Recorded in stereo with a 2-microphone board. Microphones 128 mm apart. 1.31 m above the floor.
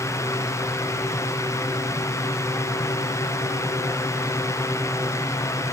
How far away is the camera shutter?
No camera shutter in this recording.